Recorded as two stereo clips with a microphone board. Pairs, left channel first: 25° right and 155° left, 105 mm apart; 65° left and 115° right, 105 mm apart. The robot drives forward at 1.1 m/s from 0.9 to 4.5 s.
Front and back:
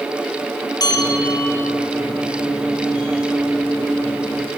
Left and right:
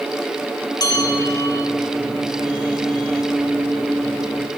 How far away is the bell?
About 2.5 m.